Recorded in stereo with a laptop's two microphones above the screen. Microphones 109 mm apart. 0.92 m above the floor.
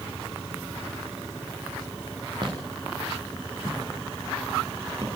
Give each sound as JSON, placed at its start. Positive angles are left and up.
{"t": 2.4, "sound": "footsteps", "side_deg": -45, "distance_m": 8.0}